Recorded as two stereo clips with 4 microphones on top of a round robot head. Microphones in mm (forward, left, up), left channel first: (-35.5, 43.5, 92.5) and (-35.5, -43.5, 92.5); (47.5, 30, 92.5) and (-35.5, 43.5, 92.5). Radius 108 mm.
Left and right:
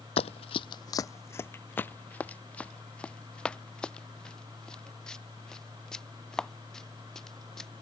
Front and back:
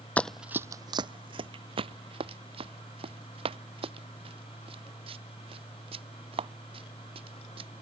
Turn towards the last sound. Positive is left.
turn(degrees=175)